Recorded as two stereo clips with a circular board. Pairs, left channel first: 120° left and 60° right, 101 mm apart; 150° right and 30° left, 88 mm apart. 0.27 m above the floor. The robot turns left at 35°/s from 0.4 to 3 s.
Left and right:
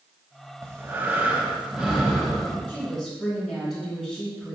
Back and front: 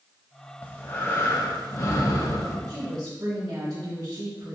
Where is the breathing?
95° right, 1.3 m; by 2.6 s 165° right, 1.3 m.